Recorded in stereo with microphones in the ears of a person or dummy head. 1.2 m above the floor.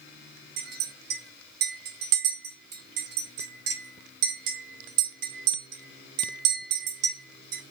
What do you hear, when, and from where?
0.6 s a clink: 60° right (ahead or behind), 1.0 m